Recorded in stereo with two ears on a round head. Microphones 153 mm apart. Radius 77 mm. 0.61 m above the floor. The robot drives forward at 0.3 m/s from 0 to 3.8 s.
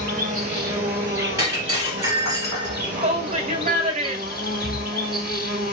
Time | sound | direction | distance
0.0 | an insect | 20° right (ahead or behind) | 1.4 m
1.4 | breaking glass | 20° right (ahead or behind) | 1.9 m
3.0 | a shout | 35° right (ahead or behind) | 0.7 m